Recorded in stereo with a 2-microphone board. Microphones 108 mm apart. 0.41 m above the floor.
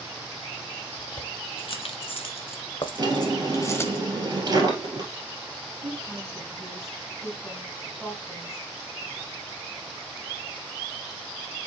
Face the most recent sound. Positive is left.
turn(degrees=5)  # may be behind; listen again after turning